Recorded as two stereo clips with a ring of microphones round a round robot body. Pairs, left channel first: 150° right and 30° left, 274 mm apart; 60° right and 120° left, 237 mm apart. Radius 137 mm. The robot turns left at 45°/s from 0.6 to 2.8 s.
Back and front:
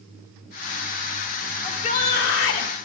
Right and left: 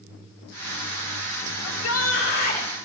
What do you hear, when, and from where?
1.6 s a shout: 75° right, 2 m; by 2.7 s 125° right, 2 m